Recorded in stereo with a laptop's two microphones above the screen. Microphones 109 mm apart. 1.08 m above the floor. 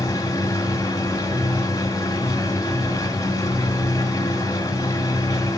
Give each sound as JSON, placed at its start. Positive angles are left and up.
{"t": 0.0, "sound": "a machine running", "side_deg": 30, "distance_m": 1.9}